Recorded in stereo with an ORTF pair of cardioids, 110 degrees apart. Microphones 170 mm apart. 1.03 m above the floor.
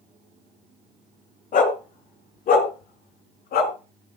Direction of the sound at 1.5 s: 50° left.